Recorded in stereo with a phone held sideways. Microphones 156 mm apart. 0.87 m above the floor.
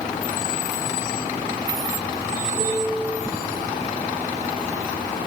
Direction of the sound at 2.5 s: 35° right (ahead or behind).